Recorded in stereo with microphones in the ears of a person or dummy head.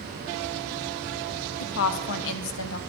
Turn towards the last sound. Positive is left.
turn(degrees=70)  # may be behind; listen again after turning